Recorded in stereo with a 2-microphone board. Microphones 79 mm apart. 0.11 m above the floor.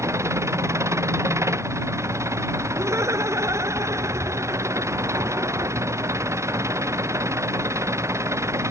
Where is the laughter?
40° right (ahead or behind).